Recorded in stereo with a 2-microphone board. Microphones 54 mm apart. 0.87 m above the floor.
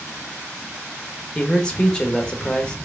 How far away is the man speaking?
About 1.0 m.